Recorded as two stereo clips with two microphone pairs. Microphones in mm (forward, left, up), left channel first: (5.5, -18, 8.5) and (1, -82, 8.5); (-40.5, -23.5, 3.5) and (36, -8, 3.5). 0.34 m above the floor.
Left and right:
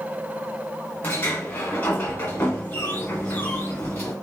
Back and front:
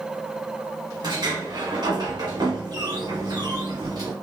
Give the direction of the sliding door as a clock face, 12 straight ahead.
11 o'clock.